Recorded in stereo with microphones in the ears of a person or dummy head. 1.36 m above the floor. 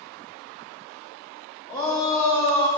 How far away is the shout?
About 3 m.